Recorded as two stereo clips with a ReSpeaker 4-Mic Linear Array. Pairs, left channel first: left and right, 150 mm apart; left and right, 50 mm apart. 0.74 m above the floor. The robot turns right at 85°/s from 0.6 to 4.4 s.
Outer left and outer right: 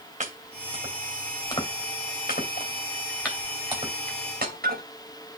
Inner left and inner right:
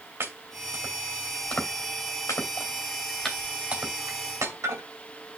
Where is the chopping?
55° right (ahead or behind), 2.5 m; by 4.8 s 85° right, 2.5 m.